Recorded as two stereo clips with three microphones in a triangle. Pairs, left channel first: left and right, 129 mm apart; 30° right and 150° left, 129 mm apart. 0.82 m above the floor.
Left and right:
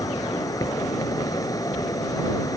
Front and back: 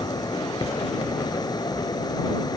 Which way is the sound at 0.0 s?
30° left.